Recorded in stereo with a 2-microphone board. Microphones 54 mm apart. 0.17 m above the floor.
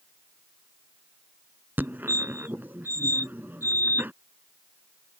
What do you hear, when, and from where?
1.8 s a fire alarm: 35° right (ahead or behind)